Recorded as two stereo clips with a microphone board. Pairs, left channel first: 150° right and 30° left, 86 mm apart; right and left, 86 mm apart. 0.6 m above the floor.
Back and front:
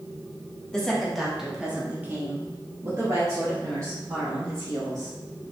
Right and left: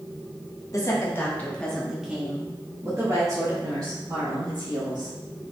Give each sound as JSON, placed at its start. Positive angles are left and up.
{"t": 0.7, "sound": "a woman speaking", "azimuth_deg": -70, "distance_m": 1.2}